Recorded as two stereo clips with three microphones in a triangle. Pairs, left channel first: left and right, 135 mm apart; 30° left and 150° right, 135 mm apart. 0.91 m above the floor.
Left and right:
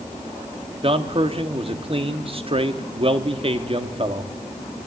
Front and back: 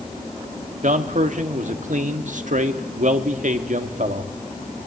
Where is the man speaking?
135° right, 1.6 m.